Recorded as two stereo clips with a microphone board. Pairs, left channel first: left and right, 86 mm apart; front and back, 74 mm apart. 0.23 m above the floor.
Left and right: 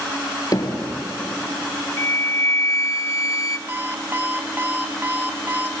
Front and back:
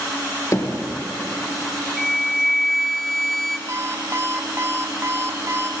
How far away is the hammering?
About 3 m.